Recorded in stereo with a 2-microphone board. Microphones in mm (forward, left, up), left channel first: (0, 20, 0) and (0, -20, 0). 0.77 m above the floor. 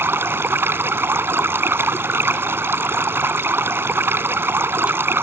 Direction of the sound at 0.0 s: 70° right (ahead or behind).